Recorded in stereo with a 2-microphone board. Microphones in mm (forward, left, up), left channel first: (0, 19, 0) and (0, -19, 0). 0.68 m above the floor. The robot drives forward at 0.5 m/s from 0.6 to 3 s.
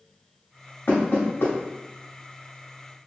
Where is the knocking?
70° left (ahead or behind), 1.3 m.